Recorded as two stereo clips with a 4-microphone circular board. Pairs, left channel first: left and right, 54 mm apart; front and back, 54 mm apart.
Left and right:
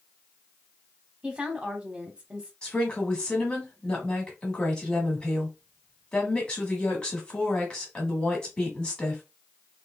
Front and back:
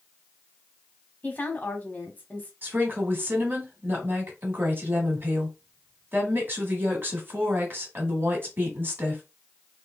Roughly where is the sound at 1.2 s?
Ahead right.